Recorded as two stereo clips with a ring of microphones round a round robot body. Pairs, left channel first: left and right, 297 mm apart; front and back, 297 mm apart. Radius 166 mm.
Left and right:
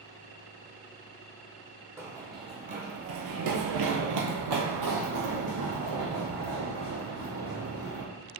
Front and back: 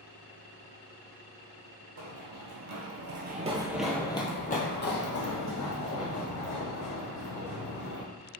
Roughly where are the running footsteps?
Behind.